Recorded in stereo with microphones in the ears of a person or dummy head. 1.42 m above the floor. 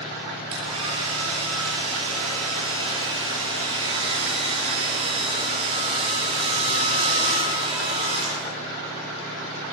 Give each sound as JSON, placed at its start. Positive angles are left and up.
{"t": 0.5, "sound": "a hair dryer", "side_deg": -30, "distance_m": 8.5}